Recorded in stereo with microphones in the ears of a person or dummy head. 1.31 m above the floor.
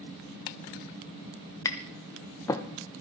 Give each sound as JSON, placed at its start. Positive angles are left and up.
{"t": 1.6, "sound": "tapping", "side_deg": 10, "distance_m": 0.9}